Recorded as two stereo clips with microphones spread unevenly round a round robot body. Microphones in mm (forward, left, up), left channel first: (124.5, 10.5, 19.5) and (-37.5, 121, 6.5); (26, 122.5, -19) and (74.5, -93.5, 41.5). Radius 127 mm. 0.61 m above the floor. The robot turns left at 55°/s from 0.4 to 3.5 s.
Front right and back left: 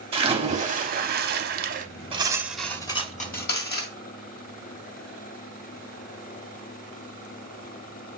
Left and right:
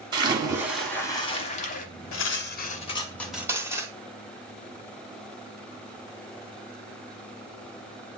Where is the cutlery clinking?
80° left, 1.5 m; by 3.9 s 5° left, 1.5 m.